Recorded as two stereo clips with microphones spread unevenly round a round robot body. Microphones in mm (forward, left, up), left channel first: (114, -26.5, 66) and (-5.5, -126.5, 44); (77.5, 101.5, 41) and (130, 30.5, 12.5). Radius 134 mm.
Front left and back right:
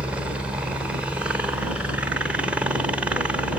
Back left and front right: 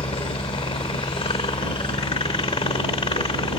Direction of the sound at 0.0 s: 145° left.